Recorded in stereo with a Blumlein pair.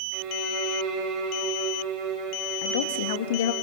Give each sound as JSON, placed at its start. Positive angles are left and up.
{"t": 0.1, "sound": "a violin", "azimuth_deg": -35, "distance_m": 6.5}
{"t": 2.6, "sound": "a woman speaking", "azimuth_deg": 55, "distance_m": 2.0}